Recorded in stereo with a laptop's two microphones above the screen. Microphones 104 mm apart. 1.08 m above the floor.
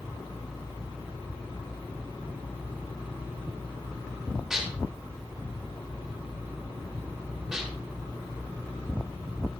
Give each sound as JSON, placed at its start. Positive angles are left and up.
{"t": 4.5, "sound": "dishes clattering", "side_deg": -5, "distance_m": 3.0}